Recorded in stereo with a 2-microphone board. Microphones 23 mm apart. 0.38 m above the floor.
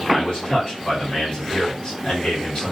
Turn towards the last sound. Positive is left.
turn(degrees=40)  # may be behind; listen again after turning